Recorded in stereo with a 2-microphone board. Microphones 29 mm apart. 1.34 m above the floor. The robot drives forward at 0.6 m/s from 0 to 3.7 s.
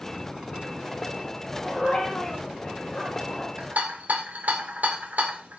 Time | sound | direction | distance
1.6 | a dog barking | 25° left (ahead or behind) | 6.5 m
3.6 | a rattle | 65° right (ahead or behind) | 1.8 m